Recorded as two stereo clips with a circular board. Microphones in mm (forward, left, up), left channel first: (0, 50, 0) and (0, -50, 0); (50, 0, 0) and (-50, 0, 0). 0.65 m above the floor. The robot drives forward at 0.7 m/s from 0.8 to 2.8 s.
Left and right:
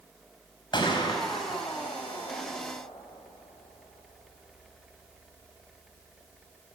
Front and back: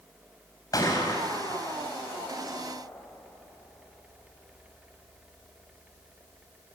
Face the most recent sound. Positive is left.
turn(degrees=70)